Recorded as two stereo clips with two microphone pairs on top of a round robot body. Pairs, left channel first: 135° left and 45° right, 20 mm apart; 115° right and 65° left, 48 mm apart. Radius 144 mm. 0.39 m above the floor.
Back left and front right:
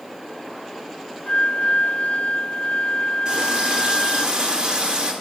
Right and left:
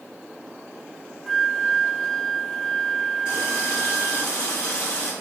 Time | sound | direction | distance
1.3 | a flute | 160° left | 0.6 m
3.2 | a running tap | 85° right | 6.5 m